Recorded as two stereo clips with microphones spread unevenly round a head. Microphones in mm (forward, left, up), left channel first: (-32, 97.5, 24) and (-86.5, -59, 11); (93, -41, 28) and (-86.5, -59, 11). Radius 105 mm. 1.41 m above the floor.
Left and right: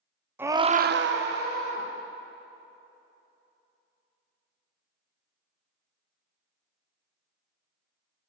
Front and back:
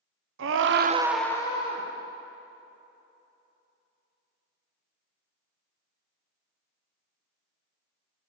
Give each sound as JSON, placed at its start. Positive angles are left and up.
{"t": 0.4, "sound": "a scream", "azimuth_deg": 175, "distance_m": 0.9}